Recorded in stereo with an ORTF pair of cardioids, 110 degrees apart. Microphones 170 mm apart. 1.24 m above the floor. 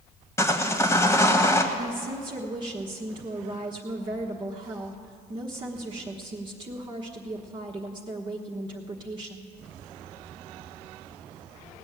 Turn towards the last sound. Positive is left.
turn(degrees=-30)